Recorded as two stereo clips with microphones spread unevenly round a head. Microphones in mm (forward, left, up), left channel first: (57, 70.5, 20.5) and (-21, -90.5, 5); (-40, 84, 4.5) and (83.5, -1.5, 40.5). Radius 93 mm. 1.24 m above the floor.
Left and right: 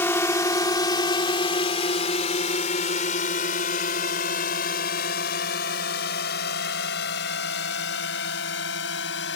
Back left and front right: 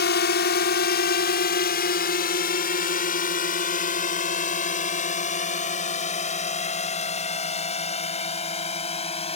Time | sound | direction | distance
0.0 | a drone | 145° left | ?